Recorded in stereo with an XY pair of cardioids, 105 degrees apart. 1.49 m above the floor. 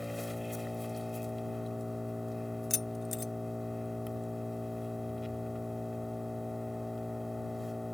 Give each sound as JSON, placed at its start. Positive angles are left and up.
{"t": 0.0, "sound": "an engine running", "azimuth_deg": 10}
{"t": 2.7, "sound": "keys jangling", "azimuth_deg": 40}